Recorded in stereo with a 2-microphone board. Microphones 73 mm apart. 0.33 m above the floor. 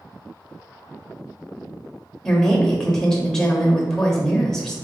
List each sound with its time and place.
2.2 s a woman speaking: 5° left (ahead or behind), 0.9 m